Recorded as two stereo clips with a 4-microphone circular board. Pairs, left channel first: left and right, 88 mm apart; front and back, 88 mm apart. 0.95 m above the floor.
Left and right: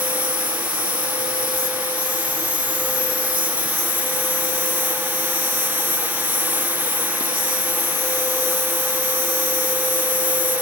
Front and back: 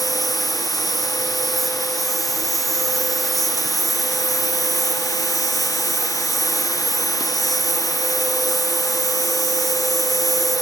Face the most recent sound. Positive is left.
turn(degrees=-90)